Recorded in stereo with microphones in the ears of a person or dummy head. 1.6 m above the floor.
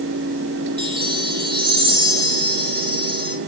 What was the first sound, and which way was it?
A chime, 25° right (ahead or behind).